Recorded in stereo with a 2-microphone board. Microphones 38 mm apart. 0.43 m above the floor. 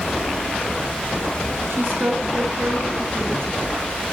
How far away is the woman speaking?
About 9.5 m.